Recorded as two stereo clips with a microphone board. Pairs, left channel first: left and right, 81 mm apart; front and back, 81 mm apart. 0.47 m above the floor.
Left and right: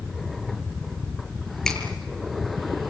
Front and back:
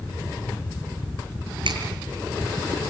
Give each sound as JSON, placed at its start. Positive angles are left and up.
{"t": 1.6, "sound": "a finger snap", "azimuth_deg": 175, "distance_m": 7.0}